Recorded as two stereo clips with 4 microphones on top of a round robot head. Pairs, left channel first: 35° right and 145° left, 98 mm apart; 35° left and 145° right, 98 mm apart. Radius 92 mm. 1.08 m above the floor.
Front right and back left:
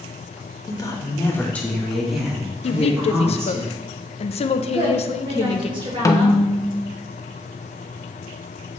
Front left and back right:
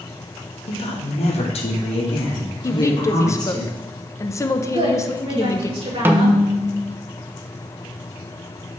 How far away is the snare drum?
About 0.8 m.